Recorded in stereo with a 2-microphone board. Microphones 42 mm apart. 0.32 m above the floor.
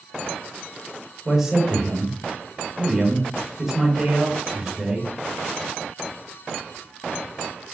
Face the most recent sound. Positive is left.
turn(degrees=-10)  # may be behind; listen again after turning